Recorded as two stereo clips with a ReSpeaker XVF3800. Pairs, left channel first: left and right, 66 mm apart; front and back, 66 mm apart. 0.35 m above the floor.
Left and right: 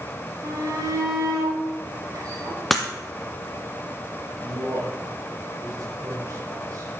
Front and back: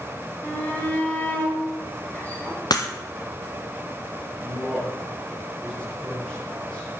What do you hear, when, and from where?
0.4 s a shout: 65° right, 5.5 m
2.7 s breaking glass: straight ahead, 1.8 m
4.4 s a man speaking: 75° right, 7 m